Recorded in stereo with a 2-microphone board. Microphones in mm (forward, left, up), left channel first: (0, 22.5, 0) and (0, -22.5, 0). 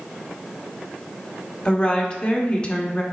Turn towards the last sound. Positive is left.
turn(degrees=25)  # may be behind; listen again after turning